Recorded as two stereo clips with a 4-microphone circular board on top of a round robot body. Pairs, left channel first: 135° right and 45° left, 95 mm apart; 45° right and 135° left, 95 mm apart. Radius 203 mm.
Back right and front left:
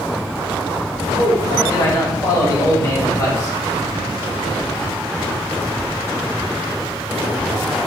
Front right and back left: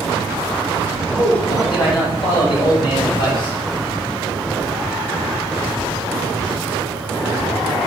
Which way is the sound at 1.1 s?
80° right.